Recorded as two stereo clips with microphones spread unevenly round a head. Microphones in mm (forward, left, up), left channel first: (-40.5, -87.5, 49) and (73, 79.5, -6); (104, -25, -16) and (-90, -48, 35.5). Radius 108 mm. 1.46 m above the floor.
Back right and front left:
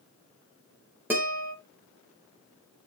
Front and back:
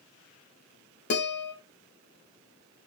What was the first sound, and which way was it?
A guitar, 30° right.